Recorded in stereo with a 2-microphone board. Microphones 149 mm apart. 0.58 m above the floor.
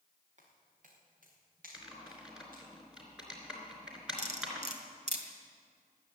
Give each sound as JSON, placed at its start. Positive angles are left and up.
{"t": 0.4, "sound": "footsteps", "side_deg": -55, "distance_m": 4.5}
{"t": 1.7, "sound": "typing on a keyboard", "side_deg": -5, "distance_m": 3.0}
{"t": 4.2, "sound": "cutlery clinking", "side_deg": -50, "distance_m": 1.7}